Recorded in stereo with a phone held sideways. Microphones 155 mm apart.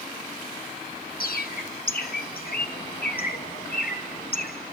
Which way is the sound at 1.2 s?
75° left (ahead or behind).